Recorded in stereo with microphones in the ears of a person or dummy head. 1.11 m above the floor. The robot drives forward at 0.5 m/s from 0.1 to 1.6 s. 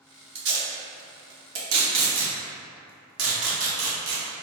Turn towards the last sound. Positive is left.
turn(degrees=-80)